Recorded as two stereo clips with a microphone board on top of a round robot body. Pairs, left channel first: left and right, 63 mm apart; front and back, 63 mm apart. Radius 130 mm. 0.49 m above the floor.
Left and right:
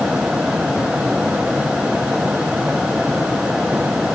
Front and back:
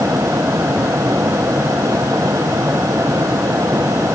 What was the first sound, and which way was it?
Only background noise.